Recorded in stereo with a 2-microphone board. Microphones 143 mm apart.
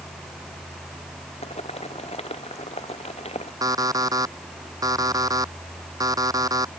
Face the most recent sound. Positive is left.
turn(degrees=-25)  # may be behind; listen again after turning